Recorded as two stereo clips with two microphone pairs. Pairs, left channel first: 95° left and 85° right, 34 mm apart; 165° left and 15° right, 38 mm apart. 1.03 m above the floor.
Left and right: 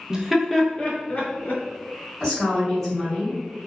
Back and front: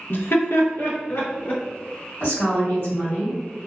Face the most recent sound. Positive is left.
turn(degrees=170)